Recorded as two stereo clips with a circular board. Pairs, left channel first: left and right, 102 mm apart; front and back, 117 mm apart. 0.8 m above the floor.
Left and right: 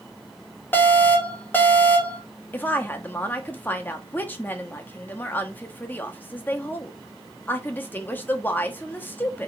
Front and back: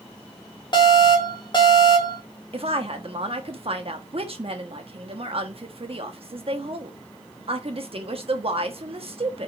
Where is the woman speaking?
155° left, 1.3 m.